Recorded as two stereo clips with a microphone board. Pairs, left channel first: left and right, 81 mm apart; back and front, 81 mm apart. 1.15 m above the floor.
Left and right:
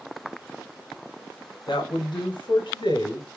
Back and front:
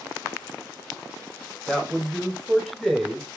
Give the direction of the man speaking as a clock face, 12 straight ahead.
9 o'clock.